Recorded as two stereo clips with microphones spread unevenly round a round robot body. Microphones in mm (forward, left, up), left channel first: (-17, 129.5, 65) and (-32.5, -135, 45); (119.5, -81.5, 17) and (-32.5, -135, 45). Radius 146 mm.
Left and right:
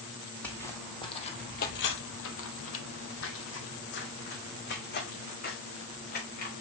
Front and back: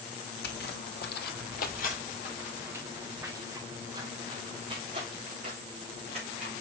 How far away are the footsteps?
About 1.4 m.